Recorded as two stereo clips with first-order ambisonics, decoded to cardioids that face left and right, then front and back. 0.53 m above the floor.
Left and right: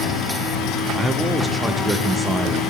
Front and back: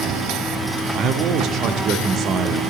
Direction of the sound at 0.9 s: 175° right.